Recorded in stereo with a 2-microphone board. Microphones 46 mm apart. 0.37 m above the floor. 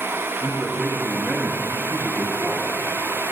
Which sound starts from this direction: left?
A man speaking, at 0.4 s.